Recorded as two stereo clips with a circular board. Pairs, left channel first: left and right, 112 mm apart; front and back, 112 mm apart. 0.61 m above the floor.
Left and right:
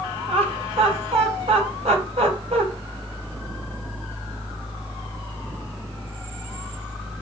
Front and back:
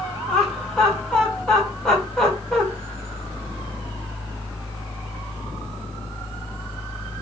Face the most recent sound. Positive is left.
turn(degrees=-85)